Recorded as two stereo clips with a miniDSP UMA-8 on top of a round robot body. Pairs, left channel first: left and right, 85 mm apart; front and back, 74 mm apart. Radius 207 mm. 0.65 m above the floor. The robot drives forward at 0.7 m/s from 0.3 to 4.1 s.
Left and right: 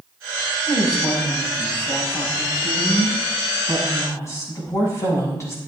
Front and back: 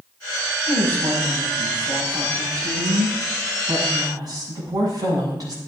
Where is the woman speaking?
130° left, 5 m; by 5.6 s 145° left, 7 m.